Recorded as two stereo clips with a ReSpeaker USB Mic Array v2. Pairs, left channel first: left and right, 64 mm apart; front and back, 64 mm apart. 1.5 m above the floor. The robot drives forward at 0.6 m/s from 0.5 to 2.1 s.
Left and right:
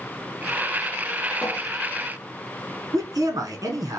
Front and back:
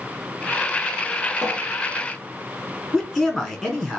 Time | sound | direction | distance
1.4 | a cupboard door | 115° left | 1.2 m
2.9 | a man speaking | 90° right | 0.9 m